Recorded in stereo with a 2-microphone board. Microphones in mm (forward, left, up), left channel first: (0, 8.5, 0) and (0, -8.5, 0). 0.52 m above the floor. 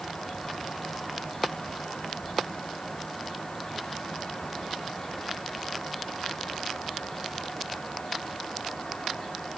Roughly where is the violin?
No violin in this recording.